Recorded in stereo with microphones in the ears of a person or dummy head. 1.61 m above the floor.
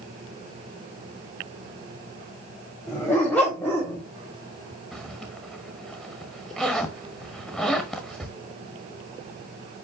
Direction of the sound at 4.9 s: Centre (ahead or behind).